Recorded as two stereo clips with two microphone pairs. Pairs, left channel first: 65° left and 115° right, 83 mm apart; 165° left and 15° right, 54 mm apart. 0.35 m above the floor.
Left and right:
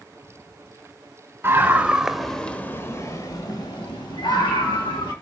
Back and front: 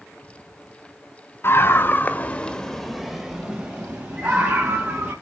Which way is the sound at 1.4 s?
175° right.